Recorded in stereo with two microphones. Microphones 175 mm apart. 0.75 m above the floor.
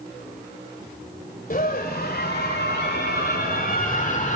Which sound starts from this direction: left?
A scream, at 1.5 s.